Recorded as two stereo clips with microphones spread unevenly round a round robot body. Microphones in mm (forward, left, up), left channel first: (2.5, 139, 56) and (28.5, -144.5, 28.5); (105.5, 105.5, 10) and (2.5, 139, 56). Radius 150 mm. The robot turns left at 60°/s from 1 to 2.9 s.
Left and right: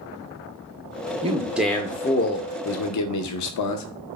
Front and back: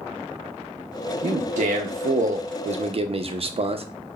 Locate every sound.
1.2 s a man speaking: 145° right, 0.6 m; by 3.9 s 115° left, 0.6 m